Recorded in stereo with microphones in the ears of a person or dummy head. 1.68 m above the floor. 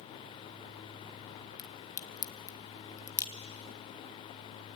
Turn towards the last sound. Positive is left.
turn(degrees=20)  # may be behind; listen again after turning